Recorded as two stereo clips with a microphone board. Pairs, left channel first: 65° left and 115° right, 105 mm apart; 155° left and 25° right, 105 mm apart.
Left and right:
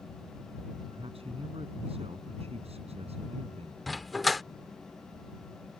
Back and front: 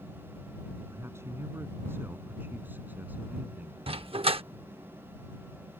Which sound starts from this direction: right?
A man speaking, at 0.9 s.